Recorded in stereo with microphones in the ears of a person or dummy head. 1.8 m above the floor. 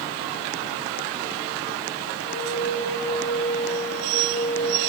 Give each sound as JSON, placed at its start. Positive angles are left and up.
{"t": 2.2, "sound": "a flute", "side_deg": 60, "distance_m": 5.0}